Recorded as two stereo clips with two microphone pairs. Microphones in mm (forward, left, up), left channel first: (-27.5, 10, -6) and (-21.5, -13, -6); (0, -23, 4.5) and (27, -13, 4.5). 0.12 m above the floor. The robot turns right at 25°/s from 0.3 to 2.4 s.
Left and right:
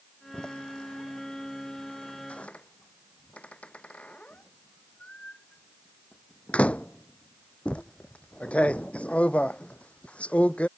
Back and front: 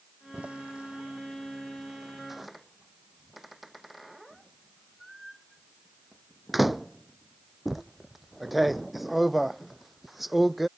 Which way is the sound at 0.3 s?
55° left.